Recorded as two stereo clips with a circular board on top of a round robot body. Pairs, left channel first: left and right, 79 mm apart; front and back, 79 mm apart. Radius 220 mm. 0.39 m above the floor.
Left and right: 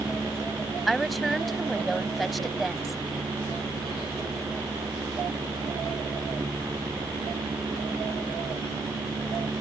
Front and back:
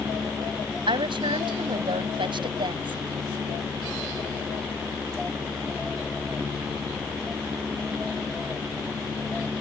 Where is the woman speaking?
Straight behind.